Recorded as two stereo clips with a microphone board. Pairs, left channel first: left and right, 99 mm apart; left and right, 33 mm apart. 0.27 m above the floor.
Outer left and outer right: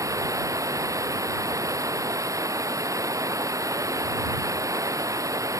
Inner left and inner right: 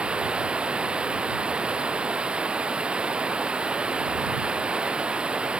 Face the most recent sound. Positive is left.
turn(degrees=-35)  # may be behind; listen again after turning